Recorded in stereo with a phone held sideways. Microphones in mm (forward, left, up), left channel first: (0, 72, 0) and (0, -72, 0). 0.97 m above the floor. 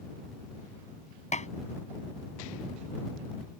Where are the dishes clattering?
55° left (ahead or behind).